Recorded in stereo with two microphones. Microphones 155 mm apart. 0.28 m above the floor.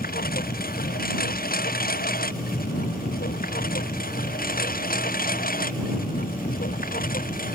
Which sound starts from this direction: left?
A lawn mower, at 0.0 s.